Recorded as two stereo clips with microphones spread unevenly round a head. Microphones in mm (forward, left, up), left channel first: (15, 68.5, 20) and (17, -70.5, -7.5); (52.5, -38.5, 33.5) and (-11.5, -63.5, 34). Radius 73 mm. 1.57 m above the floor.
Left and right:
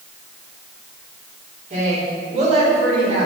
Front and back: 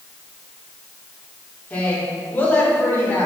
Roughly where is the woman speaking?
Ahead right.